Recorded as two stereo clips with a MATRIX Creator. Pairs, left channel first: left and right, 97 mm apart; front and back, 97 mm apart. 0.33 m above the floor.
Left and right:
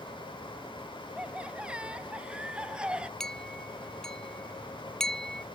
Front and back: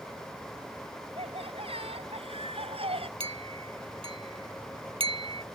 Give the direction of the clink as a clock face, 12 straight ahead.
6 o'clock.